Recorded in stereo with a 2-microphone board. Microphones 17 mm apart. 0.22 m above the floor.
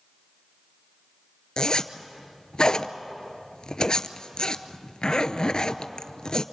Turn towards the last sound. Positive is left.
turn(degrees=60)  # may be behind; listen again after turning